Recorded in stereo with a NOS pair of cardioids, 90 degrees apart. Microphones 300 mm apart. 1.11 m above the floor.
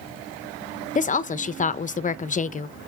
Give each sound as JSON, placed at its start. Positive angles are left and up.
{"t": 0.9, "sound": "a woman speaking", "azimuth_deg": 25, "distance_m": 0.8}